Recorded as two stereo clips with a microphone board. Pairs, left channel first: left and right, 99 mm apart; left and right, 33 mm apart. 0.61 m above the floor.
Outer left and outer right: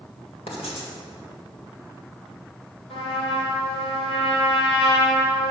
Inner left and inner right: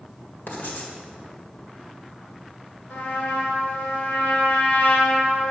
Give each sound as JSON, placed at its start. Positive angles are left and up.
{"t": 0.5, "sound": "writing", "side_deg": 75, "distance_m": 1.7}
{"t": 2.9, "sound": "a trumpet", "side_deg": 75, "distance_m": 1.7}